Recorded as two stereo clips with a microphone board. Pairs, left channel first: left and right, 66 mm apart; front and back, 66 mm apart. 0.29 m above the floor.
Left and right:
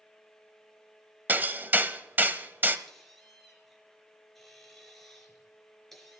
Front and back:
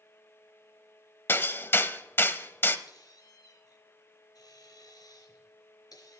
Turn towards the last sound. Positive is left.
turn(degrees=0)